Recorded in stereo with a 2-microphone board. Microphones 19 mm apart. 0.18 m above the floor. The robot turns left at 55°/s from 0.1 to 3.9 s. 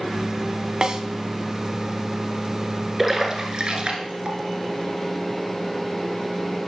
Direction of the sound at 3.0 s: 10° right (ahead or behind).